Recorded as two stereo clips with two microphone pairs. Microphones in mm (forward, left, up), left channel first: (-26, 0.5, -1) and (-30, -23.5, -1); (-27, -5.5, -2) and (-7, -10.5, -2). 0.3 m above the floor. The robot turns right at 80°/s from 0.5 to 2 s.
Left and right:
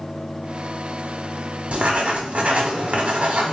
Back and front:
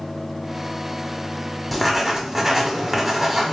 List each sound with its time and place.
1.7 s writing: 115° right, 1.0 m; by 3.5 s 90° right, 1.0 m